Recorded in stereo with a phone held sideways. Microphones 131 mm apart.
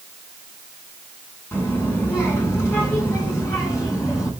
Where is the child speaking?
20° left (ahead or behind), 9.5 m; by 4.3 s 25° left (ahead or behind), 11.5 m.